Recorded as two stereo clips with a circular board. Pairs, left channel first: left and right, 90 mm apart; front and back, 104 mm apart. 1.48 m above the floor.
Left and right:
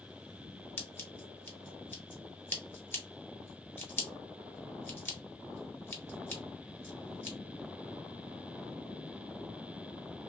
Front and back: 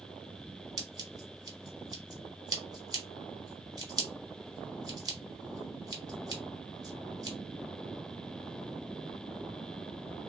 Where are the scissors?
150° left, 1.0 m.